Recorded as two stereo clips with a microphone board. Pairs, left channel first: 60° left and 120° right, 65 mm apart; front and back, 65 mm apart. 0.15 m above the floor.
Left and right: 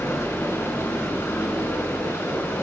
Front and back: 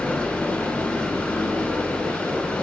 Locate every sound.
0.0 s running water: 60° left, 0.8 m